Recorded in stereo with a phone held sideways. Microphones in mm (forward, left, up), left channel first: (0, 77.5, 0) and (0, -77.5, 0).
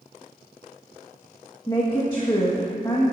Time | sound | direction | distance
1.7 | a woman speaking | 25° left (ahead or behind) | 1.5 m